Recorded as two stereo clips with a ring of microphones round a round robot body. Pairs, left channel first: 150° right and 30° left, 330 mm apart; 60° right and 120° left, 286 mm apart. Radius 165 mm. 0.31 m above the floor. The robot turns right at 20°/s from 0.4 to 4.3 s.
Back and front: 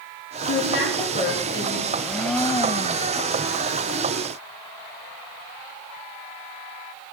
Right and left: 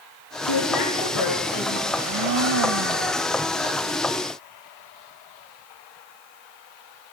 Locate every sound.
0.4 s a woman speaking: 95° right, 6 m; by 1.8 s 65° right, 6 m
1.9 s a blender: 115° left, 0.9 m; by 3.2 s 140° left, 0.9 m